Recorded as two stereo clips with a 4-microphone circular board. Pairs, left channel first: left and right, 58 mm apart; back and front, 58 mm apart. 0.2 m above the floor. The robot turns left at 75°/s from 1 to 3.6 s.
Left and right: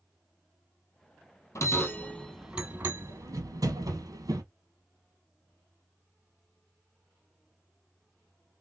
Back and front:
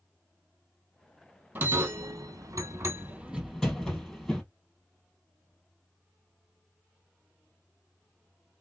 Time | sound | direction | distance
1.6 | a bell | 55° left | 1.0 m